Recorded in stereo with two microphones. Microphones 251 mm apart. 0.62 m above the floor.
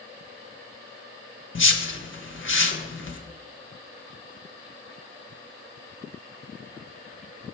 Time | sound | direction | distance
1.6 | a whoosh | 50° left (ahead or behind) | 0.7 m